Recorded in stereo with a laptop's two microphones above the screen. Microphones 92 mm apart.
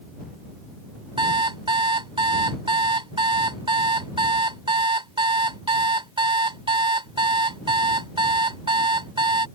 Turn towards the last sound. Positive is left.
turn(degrees=-65)  # may be behind; listen again after turning